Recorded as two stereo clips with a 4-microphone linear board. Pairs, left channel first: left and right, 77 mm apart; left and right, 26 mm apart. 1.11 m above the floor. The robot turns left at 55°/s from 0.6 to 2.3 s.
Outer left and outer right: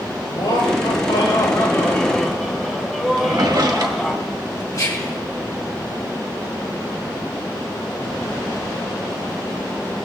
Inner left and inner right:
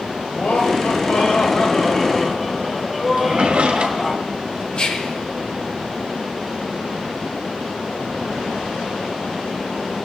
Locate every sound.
0.3 s laughter: 100° left, 4 m; by 4.2 s 5° left, 4 m
3.2 s a drawer: 65° right (ahead or behind), 1.7 m
4.7 s whispering: 50° left (ahead or behind), 3.5 m